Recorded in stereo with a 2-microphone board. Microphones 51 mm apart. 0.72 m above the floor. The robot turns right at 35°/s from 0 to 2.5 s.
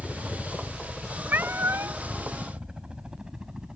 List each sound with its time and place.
0.0 s a helicopter: 30° left (ahead or behind); by 3.8 s 15° right (ahead or behind)
1.3 s a cat meowing: 40° right (ahead or behind); by 2.0 s 65° right (ahead or behind)